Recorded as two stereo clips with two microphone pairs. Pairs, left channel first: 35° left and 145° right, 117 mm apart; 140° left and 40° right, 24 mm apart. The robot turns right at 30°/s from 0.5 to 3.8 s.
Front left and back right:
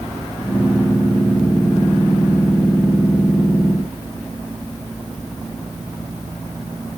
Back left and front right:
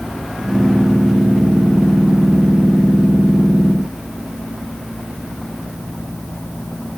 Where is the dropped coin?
I don't hear a dropped coin.